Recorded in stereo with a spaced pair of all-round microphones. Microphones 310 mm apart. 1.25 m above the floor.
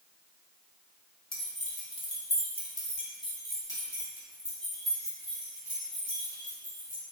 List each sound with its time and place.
1.3 s keys jangling: 55° left (ahead or behind), 1.1 m; by 7.0 s 10° right (ahead or behind), 3 m